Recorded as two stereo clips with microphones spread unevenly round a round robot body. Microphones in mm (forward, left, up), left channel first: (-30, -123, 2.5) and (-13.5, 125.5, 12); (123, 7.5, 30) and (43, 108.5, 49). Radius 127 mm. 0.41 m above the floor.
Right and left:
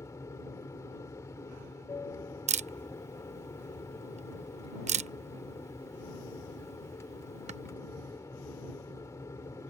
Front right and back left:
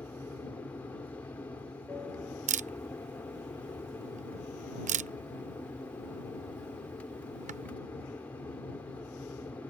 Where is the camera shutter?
150° left.